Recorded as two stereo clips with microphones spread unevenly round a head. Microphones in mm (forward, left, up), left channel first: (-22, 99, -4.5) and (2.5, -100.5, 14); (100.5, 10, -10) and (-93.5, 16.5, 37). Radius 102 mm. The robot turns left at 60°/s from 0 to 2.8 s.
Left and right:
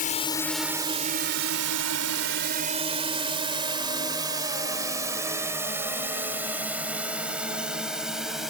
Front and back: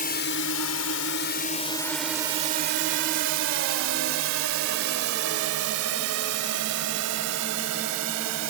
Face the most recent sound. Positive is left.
turn(degrees=-170)